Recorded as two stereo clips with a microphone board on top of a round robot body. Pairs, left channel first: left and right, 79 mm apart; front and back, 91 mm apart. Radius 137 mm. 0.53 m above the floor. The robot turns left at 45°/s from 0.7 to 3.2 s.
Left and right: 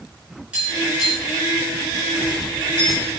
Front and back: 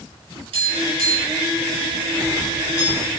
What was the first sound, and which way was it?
Tapping, 165° right.